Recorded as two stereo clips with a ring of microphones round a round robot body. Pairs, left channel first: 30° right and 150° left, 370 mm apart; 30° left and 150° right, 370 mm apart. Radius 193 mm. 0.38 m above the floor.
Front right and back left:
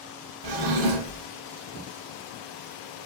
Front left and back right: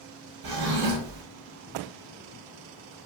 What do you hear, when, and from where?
0.4 s a drawer: 175° left, 0.7 m